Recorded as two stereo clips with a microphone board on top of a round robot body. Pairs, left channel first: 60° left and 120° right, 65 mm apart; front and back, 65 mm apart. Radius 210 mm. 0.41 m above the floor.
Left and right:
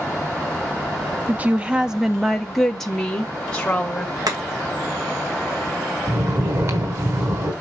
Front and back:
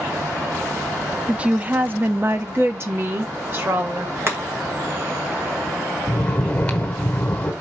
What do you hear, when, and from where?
1.3 s a woman speaking: 130° right, 1.0 m; by 4.2 s 135° left, 2.0 m
4.3 s chopping: 130° right, 2 m
6.1 s snoring: 75° right, 1.3 m